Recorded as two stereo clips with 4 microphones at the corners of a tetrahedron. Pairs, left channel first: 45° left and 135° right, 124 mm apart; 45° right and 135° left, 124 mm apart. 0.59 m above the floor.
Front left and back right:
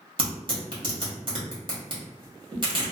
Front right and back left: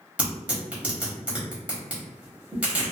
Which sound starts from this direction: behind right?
Tearing paper, at 0.2 s.